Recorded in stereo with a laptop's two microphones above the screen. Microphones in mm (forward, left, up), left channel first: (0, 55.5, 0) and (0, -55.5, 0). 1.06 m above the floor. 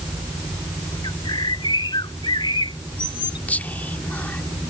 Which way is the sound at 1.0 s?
45° left (ahead or behind).